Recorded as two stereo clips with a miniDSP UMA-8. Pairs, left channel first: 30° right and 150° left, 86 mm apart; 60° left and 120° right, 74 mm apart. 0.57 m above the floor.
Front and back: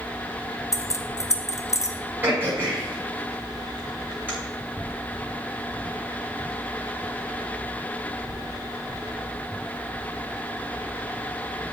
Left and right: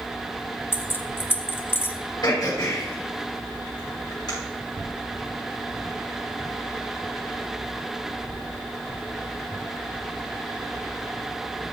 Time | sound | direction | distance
0.7 | keys jangling | 10° left | 0.8 m
2.2 | throat clearing | 85° left | 6.5 m